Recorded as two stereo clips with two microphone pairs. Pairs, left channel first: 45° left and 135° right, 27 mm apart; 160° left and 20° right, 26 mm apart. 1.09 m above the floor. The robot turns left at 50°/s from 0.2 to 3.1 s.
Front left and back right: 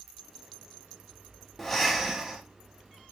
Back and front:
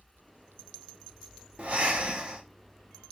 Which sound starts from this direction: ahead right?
Breathing, at 1.6 s.